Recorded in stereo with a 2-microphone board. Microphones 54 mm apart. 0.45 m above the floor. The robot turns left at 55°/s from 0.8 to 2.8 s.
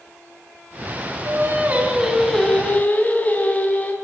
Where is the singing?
125° right, 4 m; by 3.9 s 150° left, 4 m.